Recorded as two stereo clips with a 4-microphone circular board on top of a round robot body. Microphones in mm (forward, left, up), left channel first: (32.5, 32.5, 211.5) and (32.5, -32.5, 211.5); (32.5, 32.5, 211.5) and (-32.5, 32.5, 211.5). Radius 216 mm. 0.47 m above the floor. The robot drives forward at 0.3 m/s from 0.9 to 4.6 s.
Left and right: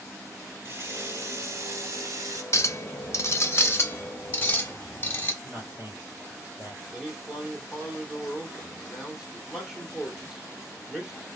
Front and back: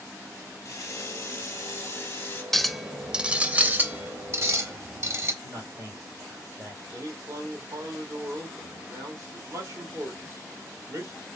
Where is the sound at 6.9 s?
170° right, 1.8 m.